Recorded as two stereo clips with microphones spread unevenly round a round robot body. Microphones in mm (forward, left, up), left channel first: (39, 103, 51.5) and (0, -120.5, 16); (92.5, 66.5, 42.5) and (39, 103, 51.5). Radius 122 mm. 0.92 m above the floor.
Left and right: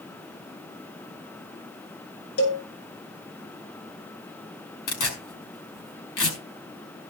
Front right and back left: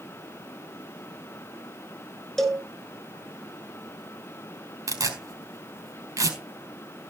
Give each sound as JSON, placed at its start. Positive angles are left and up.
{"t": 2.4, "sound": "a cowbell", "azimuth_deg": 50, "distance_m": 6.0}
{"t": 4.9, "sound": "tearing paper", "azimuth_deg": 115, "distance_m": 4.5}